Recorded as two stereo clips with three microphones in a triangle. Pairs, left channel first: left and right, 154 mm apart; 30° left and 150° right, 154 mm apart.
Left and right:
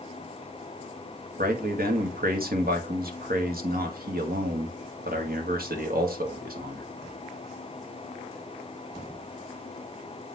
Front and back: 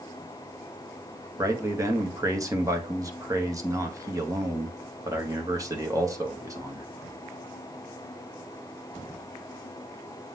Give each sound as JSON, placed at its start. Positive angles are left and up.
{"t": 1.4, "sound": "a man speaking", "azimuth_deg": -80, "distance_m": 1.6}